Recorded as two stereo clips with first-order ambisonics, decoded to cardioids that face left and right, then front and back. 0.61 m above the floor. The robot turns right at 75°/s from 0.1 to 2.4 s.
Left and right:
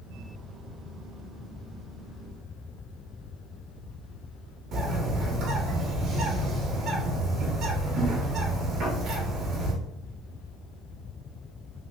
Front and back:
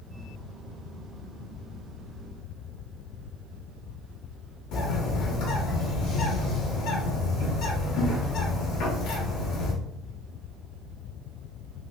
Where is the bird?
35° right, 1.2 m.